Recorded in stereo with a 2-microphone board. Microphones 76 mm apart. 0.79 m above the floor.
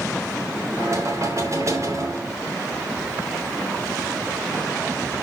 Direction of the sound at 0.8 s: 45° right (ahead or behind).